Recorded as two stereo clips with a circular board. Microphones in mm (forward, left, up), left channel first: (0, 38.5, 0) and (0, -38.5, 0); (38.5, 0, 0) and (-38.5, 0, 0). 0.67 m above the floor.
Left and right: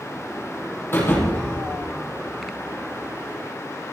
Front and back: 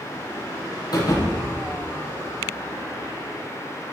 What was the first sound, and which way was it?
A thud, 30° left.